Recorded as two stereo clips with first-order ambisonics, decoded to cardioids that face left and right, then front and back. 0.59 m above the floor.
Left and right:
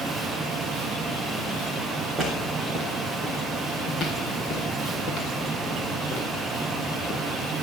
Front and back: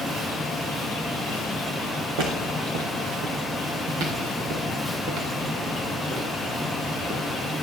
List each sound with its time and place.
2.2 s footsteps: 170° right, 3.5 m; by 7.2 s 125° left, 6.5 m